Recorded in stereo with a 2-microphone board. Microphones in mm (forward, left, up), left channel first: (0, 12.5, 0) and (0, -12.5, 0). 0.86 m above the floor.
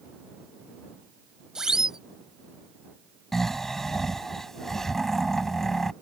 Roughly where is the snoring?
Centre.